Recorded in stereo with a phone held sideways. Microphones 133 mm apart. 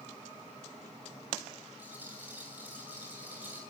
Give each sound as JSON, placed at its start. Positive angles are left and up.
{"t": 1.8, "sound": "a rattle", "side_deg": -15, "distance_m": 8.0}